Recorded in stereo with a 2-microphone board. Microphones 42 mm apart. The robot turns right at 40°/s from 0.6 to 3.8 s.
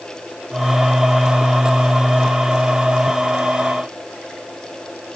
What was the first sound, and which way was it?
Only background noise.